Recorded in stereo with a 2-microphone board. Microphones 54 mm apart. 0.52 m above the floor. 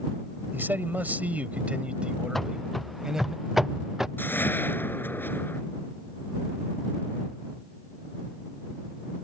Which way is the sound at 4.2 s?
40° left (ahead or behind).